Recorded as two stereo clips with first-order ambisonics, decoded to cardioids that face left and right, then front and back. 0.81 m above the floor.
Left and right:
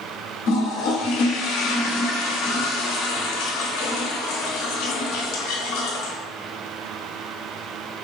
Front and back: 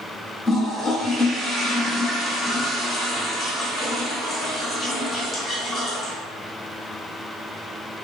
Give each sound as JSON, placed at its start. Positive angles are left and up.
{"t": 0.5, "sound": "a toilet flushing", "azimuth_deg": 75, "distance_m": 1.1}